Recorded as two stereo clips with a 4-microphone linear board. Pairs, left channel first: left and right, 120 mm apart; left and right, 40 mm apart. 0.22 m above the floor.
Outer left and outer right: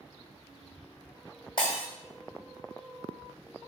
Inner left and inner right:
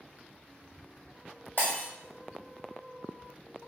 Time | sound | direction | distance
1.6 | breaking glass | 45° left (ahead or behind) | 1.1 m